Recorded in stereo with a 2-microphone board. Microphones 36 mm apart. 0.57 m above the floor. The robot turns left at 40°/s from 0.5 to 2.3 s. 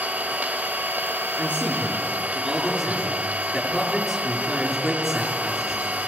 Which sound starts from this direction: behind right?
A man speaking, at 1.4 s.